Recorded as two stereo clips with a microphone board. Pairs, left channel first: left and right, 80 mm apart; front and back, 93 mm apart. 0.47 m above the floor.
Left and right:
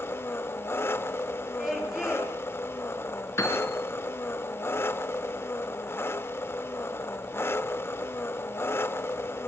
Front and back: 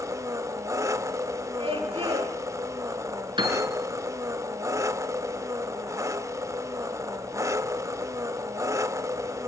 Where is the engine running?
140° left, 0.7 m.